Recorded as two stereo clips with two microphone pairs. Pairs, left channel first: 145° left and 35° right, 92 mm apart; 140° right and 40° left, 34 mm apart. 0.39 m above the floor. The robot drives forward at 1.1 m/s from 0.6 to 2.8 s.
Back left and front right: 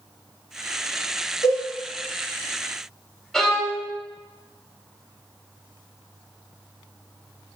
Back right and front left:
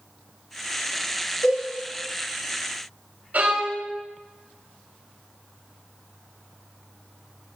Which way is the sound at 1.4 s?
175° right.